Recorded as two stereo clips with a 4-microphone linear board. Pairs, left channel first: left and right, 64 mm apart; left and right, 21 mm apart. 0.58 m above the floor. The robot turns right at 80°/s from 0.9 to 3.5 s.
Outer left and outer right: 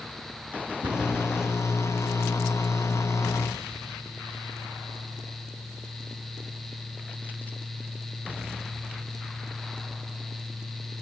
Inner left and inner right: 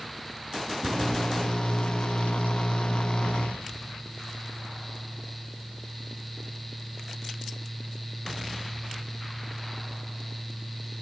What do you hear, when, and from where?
0.8 s a cupboard door: 70° right (ahead or behind), 5.5 m; by 1.1 s 60° right (ahead or behind), 5.5 m